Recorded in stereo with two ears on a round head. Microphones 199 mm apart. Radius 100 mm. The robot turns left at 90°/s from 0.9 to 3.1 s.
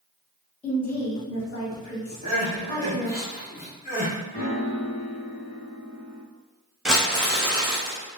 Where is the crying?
30° right (ahead or behind), 1.6 m; by 4.1 s 35° left (ahead or behind), 1.6 m.